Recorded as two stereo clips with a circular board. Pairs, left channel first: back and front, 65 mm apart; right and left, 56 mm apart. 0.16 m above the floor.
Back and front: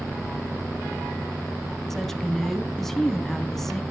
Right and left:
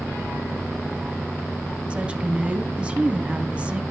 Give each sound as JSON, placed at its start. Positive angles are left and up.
{"t": 1.9, "sound": "a woman speaking", "azimuth_deg": 105, "distance_m": 1.0}